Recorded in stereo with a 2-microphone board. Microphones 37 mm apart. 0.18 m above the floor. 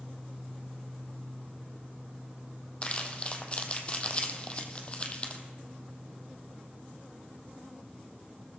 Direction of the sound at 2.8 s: 30° left (ahead or behind).